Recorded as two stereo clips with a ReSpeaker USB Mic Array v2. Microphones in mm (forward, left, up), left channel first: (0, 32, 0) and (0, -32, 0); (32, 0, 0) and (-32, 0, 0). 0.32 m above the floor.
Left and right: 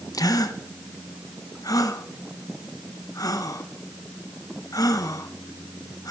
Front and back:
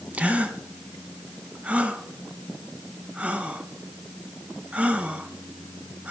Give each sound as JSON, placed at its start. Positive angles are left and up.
{"t": 0.1, "sound": "a gasp", "azimuth_deg": 110, "distance_m": 0.7}